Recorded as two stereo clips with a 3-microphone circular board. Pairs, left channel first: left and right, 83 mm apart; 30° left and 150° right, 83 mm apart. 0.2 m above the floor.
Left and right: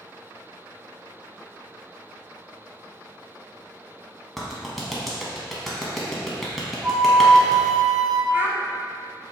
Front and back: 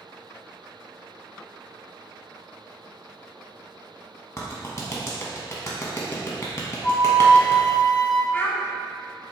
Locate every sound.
4.4 s a clap: 5° left, 1.1 m
6.8 s a flute: 5° left, 0.7 m
8.3 s a child speaking: 35° right, 0.8 m